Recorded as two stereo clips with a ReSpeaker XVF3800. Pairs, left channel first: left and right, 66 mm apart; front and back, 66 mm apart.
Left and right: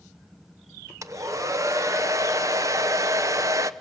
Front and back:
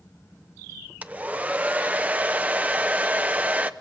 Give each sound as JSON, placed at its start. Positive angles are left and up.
{"t": 1.0, "sound": "a hair dryer", "azimuth_deg": -115, "distance_m": 0.8}